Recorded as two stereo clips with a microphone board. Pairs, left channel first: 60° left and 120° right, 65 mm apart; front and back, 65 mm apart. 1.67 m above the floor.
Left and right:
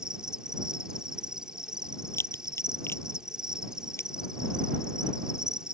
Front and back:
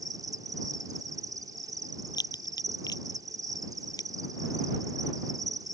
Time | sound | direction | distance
0.0 | an insect | 160° left | ?
2.1 | a crack | 10° left | ?